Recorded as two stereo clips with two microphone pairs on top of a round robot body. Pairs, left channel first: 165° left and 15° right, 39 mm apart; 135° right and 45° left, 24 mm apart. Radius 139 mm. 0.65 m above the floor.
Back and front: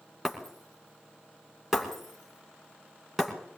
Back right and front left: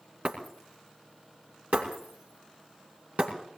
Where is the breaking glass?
65° left, 2.5 m.